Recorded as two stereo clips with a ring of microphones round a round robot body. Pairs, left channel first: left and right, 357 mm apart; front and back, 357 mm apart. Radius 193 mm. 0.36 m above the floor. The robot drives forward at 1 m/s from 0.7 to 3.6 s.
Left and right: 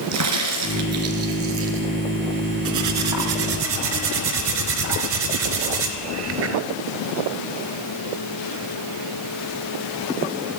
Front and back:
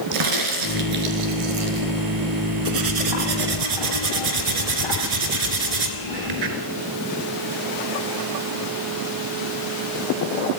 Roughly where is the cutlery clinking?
Behind right.